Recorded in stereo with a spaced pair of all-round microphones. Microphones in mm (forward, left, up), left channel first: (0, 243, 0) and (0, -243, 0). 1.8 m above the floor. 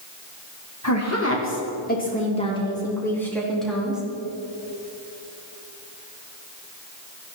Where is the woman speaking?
35° left (ahead or behind), 2 m; by 4.0 s centre (ahead or behind), 4 m.